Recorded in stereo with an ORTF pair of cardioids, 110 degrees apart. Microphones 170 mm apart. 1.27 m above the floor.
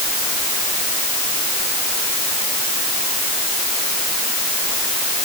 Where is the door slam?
No door slam in this recording.